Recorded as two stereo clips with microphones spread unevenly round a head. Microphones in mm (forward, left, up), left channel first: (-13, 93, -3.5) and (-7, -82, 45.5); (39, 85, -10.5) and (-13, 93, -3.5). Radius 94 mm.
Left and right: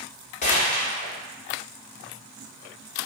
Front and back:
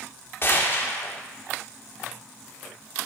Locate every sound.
0.4 s a gunshot: 35° left, 1.3 m